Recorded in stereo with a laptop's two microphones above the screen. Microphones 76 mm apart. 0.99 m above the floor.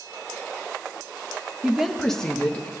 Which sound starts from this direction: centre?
A woman speaking, at 1.6 s.